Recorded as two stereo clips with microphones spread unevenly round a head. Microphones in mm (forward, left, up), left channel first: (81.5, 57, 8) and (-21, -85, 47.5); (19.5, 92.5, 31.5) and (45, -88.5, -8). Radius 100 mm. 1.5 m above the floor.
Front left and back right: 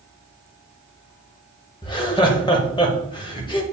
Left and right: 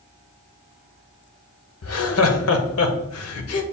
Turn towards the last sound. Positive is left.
turn(degrees=120)